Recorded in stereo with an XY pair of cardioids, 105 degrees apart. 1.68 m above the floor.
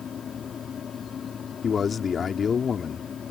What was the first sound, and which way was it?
A fan, 50° left.